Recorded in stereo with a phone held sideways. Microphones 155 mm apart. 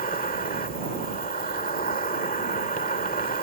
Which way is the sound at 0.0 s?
60° left (ahead or behind).